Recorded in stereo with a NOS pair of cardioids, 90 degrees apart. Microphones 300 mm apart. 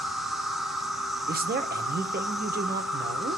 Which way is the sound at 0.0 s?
Straight ahead.